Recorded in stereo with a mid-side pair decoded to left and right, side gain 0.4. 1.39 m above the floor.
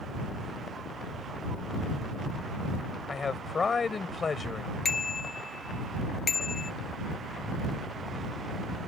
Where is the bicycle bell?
40° left.